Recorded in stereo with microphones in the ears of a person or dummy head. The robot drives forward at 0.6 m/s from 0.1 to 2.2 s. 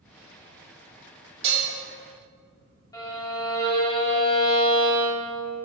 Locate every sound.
1.4 s dishes clattering: 40° right (ahead or behind), 1.6 m; by 1.7 s 45° right (ahead or behind), 1.5 m
2.9 s a violin: 15° left (ahead or behind), 1.5 m